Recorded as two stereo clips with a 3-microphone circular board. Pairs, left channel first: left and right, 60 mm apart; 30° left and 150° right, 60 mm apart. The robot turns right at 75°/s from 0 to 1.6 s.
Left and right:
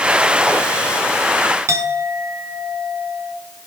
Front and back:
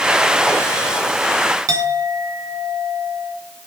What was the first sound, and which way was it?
A clink, 130° right.